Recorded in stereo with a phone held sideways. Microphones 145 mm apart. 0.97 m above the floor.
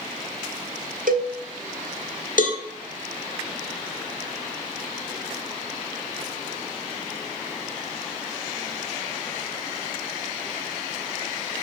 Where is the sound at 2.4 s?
70° left (ahead or behind), 1.2 m.